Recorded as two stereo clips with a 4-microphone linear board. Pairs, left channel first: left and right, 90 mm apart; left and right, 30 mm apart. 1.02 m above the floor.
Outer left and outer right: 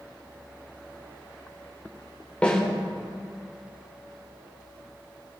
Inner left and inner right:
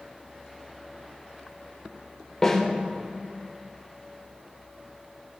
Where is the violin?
No violin in this recording.